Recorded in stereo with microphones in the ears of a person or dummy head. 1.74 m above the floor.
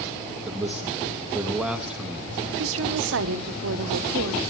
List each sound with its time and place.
0.5 s a man speaking: 5° right (ahead or behind), 0.7 m
2.6 s a woman speaking: 70° right (ahead or behind), 0.7 m